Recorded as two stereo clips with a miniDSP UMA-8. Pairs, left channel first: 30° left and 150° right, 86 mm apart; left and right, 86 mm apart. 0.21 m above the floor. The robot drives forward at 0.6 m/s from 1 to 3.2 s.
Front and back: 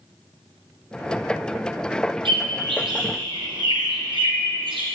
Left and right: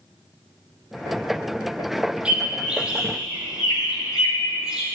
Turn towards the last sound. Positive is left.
turn(degrees=-170)